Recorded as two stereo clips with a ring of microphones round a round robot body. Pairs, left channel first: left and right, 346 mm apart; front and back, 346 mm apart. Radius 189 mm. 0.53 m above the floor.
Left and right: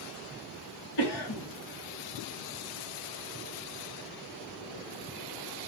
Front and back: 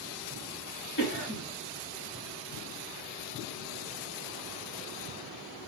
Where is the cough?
65° left, 3 m.